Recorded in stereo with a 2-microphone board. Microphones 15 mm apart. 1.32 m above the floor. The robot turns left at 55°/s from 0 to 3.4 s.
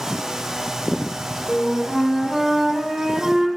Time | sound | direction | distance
1.5 | a flute | 10° left | 3.5 m